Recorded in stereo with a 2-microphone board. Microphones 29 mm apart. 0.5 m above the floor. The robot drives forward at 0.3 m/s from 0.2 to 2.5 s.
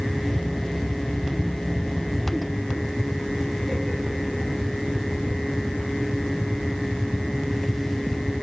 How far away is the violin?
No violin in this recording.